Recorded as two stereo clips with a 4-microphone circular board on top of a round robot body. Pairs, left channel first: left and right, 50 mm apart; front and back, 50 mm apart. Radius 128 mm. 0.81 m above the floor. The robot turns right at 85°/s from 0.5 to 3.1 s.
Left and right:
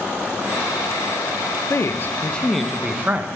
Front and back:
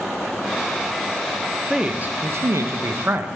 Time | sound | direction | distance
1.7 | a man speaking | 100° left | 0.5 m